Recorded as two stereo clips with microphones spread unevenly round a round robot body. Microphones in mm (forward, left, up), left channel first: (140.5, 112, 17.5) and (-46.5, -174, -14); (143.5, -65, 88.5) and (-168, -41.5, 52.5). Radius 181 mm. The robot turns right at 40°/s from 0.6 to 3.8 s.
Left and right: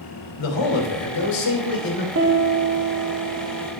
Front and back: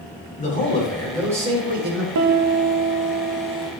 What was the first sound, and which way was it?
A man speaking, 65° left.